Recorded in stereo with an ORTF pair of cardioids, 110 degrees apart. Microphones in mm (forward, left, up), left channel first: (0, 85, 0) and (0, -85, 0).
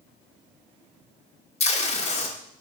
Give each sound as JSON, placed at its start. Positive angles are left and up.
{"t": 1.6, "sound": "tape being pulled", "azimuth_deg": 40, "distance_m": 1.0}